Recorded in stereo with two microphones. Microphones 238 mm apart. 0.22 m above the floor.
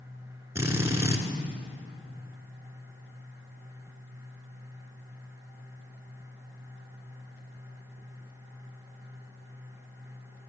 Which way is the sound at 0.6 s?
10° right (ahead or behind).